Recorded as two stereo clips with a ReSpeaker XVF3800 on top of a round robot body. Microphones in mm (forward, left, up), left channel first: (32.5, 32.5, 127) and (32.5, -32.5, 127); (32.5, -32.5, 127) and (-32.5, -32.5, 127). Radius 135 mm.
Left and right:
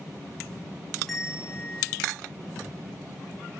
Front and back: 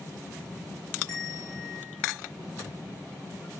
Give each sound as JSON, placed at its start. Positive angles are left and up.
{"t": 1.1, "sound": "a bell", "azimuth_deg": 0, "distance_m": 1.0}